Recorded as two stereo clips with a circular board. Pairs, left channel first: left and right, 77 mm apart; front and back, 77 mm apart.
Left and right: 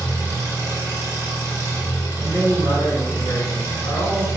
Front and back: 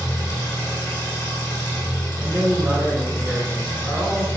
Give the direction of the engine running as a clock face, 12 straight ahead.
1 o'clock.